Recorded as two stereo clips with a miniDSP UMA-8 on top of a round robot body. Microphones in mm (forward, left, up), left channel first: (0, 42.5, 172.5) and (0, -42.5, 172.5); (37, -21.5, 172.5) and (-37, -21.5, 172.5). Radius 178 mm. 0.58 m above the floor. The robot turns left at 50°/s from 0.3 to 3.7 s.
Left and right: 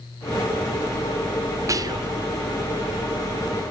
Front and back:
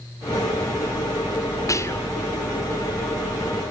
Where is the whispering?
40° right, 2.5 m; by 2.1 s 65° right, 2.5 m.